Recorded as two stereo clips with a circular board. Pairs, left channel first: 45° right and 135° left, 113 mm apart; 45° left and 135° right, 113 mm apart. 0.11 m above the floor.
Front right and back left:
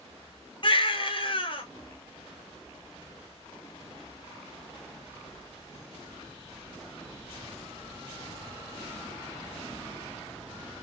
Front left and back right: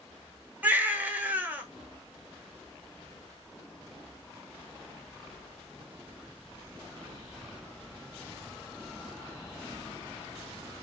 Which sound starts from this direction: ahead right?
A baby crying, at 0.6 s.